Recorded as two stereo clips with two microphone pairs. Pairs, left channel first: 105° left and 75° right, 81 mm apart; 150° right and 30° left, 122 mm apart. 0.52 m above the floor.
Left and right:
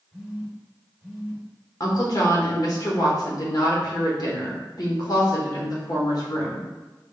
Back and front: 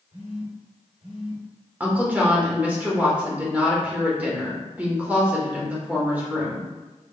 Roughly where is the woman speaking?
Left.